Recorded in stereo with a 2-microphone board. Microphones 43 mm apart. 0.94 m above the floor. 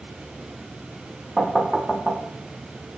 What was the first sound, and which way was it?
Knocking, centre (ahead or behind).